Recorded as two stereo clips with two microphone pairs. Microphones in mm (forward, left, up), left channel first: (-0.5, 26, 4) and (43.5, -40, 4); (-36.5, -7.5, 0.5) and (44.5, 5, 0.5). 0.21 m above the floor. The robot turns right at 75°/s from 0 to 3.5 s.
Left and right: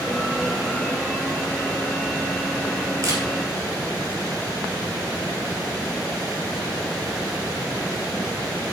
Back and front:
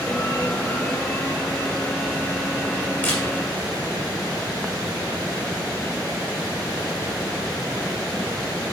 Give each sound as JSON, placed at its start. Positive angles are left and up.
{"t": 3.0, "sound": "a camera shutter", "azimuth_deg": -105, "distance_m": 3.0}